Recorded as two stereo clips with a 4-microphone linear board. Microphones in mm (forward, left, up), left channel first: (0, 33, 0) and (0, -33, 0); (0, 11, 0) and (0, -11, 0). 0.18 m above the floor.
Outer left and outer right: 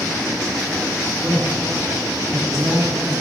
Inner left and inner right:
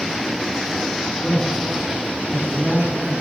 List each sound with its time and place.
1.2 s a man speaking: 40° right (ahead or behind), 2.5 m